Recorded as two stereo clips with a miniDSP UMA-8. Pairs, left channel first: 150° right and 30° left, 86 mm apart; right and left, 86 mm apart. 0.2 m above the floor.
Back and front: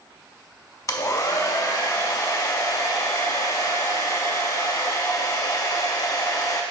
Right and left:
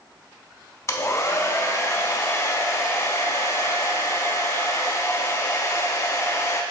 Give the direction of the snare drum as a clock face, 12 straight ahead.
No snare drum in this recording.